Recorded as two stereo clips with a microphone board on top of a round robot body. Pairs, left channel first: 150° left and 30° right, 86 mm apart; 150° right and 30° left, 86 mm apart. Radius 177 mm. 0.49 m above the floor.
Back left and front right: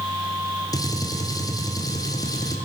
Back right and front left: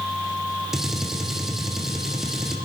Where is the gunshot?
115° left, 1.5 m.